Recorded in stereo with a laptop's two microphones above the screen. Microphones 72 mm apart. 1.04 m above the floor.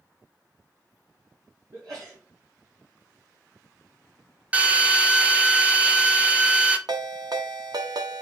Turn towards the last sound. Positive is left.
turn(degrees=-70)  # may be behind; listen again after turning